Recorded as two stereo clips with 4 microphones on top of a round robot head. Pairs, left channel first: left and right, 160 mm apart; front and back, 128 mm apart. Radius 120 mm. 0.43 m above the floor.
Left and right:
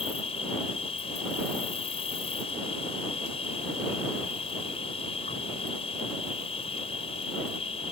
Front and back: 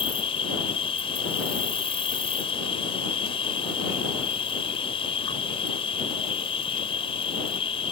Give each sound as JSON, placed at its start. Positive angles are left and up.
{"t": 0.0, "sound": "an insect", "azimuth_deg": 35}